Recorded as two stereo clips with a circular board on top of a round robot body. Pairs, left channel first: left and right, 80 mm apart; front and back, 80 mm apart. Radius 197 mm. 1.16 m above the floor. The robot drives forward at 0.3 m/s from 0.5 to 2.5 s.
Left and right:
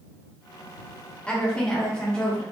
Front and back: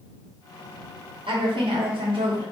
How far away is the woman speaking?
About 0.7 m.